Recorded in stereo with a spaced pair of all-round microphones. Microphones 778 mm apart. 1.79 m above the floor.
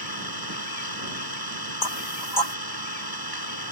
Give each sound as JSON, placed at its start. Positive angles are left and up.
{"t": 0.0, "sound": "an engine running", "side_deg": -25}
{"t": 1.8, "sound": "knocking", "side_deg": 65}